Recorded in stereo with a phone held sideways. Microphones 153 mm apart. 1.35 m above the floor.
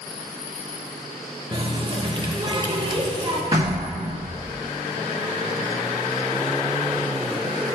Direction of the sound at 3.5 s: 35° right (ahead or behind).